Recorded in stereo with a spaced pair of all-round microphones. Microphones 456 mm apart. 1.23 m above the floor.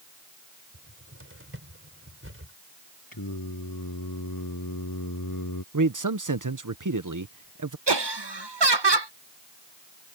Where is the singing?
45° left (ahead or behind).